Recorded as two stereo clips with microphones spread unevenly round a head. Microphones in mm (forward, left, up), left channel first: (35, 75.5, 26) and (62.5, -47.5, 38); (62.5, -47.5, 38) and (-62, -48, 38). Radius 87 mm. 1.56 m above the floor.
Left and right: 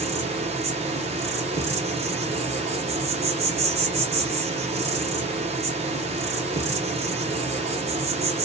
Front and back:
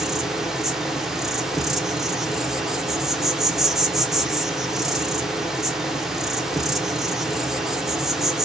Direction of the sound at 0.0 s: 95° right.